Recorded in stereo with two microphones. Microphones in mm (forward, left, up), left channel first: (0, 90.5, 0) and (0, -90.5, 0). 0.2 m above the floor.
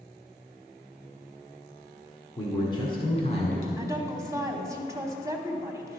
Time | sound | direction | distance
2.4 | a man speaking | 20° left (ahead or behind) | 1.5 m
3.8 | a woman speaking | 20° right (ahead or behind) | 1.0 m